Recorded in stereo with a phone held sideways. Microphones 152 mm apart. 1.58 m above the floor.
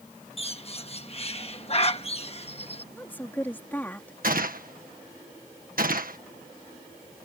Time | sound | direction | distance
0.4 | a bird | 40° left (ahead or behind) | ?
2.9 | a woman speaking | 10° left (ahead or behind) | ?
4.2 | a gunshot | 70° right (ahead or behind) | ?